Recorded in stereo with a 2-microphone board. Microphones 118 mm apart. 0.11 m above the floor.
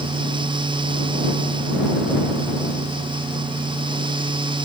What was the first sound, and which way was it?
Only background noise.